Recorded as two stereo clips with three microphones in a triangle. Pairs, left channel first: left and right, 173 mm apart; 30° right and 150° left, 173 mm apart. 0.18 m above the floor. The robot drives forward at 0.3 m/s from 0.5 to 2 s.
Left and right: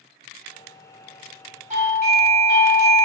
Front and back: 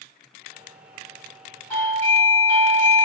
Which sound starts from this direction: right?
A doorbell, at 1.7 s.